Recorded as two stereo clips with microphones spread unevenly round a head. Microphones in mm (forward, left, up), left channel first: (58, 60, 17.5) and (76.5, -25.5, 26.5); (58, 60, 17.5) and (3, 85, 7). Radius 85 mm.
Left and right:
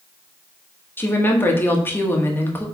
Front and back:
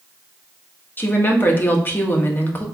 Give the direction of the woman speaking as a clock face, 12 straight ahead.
11 o'clock.